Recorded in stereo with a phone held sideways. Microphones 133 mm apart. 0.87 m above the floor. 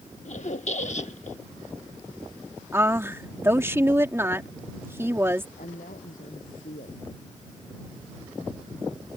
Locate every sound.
0.2 s a squeak: 60° left (ahead or behind)
2.7 s a woman speaking: 20° right (ahead or behind)
5.6 s a woman speaking: 85° left